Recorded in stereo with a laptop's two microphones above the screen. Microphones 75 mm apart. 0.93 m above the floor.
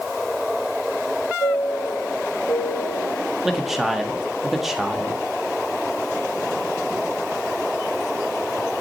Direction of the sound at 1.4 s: 70° left (ahead or behind).